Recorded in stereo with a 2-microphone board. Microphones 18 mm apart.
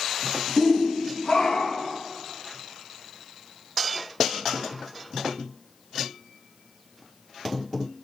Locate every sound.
0.6 s a shout: 10° left (ahead or behind), 0.6 m; by 2.0 s 65° left (ahead or behind), 1.8 m